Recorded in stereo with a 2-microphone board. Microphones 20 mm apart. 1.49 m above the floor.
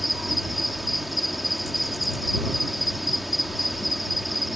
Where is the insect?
5° right (ahead or behind).